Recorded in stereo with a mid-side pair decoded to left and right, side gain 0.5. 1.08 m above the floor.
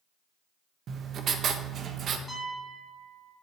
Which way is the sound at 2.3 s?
5° left.